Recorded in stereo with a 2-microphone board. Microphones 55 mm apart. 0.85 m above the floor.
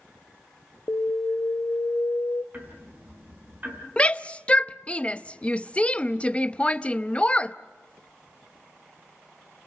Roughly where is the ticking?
Right.